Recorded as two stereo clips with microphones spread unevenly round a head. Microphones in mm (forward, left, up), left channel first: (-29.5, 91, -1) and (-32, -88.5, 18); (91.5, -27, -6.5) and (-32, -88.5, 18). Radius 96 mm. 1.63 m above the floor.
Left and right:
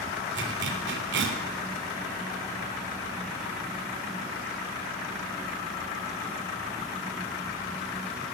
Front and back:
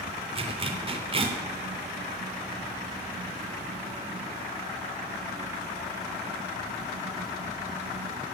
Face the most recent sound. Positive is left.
turn(degrees=-110)